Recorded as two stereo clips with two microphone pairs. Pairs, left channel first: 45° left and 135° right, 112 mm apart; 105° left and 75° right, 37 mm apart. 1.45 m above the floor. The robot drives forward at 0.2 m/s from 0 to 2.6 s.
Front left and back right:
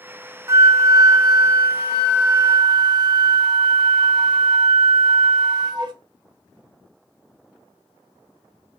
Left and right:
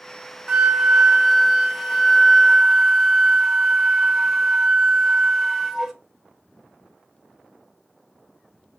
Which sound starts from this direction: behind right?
A flute, at 0.5 s.